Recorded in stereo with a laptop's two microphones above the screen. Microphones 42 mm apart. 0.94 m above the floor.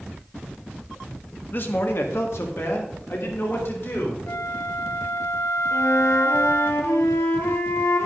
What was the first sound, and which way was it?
A man speaking, 45° left (ahead or behind).